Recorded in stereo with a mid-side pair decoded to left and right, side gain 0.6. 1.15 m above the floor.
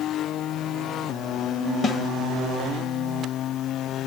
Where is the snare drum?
35° left, 1.0 m.